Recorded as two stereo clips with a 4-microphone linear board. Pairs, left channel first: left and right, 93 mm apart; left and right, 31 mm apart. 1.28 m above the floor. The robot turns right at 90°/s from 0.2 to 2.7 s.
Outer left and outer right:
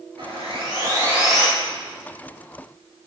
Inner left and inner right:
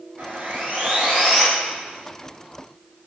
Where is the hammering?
No hammering in this recording.